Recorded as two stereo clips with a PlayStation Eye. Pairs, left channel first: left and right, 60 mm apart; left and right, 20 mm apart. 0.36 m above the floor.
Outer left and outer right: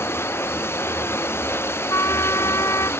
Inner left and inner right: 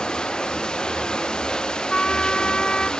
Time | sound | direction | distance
0.0 | running water | 40° left (ahead or behind) | ?
1.9 | a trumpet | 55° left (ahead or behind) | ?